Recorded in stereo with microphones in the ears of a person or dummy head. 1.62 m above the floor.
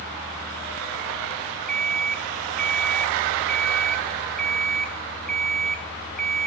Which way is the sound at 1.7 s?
Centre (ahead or behind).